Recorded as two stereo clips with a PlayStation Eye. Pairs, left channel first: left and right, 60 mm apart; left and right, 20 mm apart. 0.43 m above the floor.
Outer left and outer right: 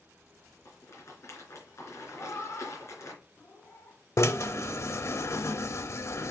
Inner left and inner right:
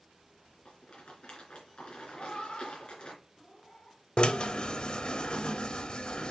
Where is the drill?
50° left (ahead or behind), 0.7 m.